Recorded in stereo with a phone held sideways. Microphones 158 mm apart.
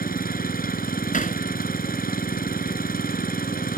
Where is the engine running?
65° left (ahead or behind).